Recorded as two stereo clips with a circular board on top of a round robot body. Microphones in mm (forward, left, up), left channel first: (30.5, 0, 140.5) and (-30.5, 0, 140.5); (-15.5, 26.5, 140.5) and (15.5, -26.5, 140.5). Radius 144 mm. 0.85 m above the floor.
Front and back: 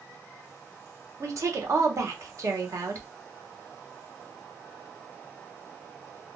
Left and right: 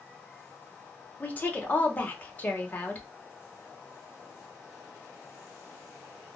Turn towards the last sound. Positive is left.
turn(degrees=175)